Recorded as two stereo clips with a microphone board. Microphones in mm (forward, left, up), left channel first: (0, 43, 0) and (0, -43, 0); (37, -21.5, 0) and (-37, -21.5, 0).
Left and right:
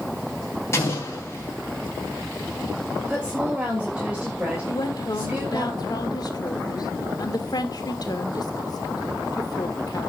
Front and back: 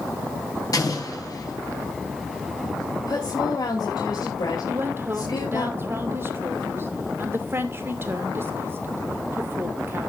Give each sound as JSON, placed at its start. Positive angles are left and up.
{"t": 0.7, "sound": "an explosion", "azimuth_deg": 35, "distance_m": 4.0}
{"t": 3.1, "sound": "a woman speaking", "azimuth_deg": -15, "distance_m": 3.0}
{"t": 4.7, "sound": "a woman speaking", "azimuth_deg": 125, "distance_m": 2.0}